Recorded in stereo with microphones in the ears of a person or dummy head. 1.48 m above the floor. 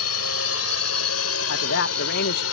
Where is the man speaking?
60° left (ahead or behind).